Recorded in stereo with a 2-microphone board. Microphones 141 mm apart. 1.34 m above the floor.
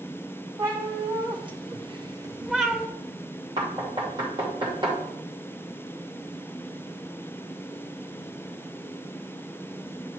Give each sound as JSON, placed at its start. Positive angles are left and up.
{"t": 0.6, "sound": "a cat meowing", "side_deg": -30, "distance_m": 2.0}
{"t": 3.6, "sound": "knocking", "side_deg": -35, "distance_m": 3.0}